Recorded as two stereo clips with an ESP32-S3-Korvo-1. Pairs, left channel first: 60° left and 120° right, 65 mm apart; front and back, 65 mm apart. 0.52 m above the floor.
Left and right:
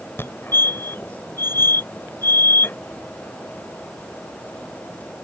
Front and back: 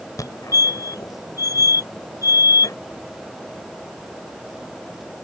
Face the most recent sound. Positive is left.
turn(degrees=10)